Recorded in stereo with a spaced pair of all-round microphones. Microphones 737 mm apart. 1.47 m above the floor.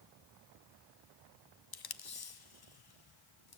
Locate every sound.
1.7 s tape being pulled: 35° left (ahead or behind), 0.5 m